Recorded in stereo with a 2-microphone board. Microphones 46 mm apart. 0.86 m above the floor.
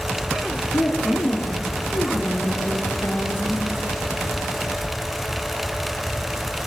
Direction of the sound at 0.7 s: 70° left (ahead or behind).